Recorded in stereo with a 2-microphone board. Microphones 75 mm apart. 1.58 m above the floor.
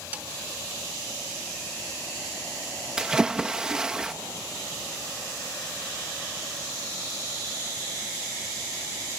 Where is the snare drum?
20° right (ahead or behind).